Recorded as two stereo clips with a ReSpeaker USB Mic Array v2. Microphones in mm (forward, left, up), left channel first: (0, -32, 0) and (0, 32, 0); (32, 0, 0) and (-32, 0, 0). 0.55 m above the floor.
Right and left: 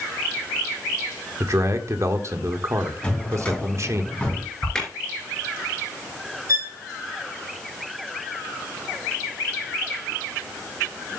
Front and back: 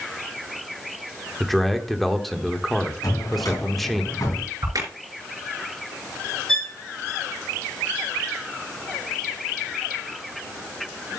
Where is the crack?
165° right, 3.5 m.